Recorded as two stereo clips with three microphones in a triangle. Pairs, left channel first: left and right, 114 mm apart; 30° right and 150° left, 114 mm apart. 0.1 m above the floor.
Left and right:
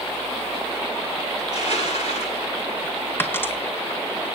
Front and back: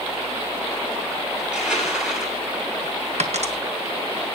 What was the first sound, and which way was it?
Crushing, 65° left.